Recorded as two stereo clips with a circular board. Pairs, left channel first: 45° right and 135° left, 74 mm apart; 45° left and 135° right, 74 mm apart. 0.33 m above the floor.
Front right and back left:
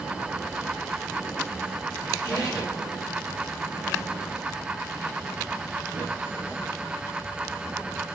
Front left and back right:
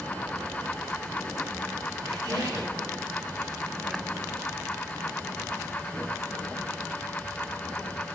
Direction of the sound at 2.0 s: 85° right.